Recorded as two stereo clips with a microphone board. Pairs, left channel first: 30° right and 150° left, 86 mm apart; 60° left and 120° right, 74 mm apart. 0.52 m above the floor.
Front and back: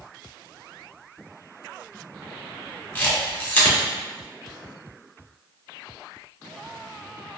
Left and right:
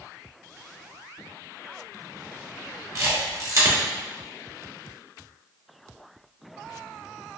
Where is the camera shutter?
95° right, 0.9 m.